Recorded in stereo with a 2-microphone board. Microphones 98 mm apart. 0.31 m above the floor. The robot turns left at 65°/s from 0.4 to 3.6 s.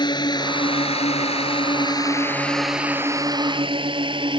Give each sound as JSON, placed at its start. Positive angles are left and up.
{"t": 0.0, "sound": "a drone", "side_deg": 45}